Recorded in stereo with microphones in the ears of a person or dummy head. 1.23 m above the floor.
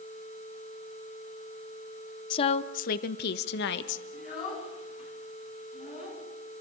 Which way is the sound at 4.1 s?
40° left (ahead or behind).